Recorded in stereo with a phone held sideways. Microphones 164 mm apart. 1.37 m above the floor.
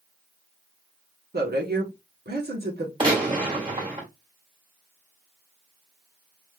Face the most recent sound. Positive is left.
turn(degrees=-30)  # may be behind; listen again after turning